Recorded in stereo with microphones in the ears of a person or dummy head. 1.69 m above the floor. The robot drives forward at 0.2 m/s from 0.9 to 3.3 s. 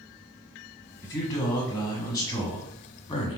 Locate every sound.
1.0 s a man speaking: 20° left (ahead or behind), 1.3 m; by 3.4 s 30° left (ahead or behind), 0.9 m